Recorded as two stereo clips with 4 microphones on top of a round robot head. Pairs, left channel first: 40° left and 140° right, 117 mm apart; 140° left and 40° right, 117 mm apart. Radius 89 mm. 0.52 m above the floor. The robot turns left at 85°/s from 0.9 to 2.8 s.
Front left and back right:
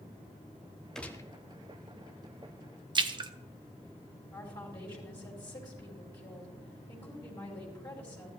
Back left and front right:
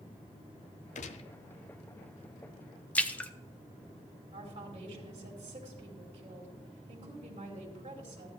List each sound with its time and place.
0.9 s a gunshot: 125° left, 0.6 m; by 1.3 s 95° left, 0.6 m
3.0 s a splash: 150° right, 0.7 m
4.3 s a woman speaking: 15° right, 2.5 m